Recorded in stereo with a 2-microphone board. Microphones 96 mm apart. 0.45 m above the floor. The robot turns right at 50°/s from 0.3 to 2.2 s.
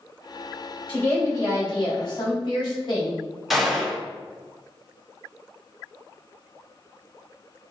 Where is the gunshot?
Centre (ahead or behind), 1.4 m.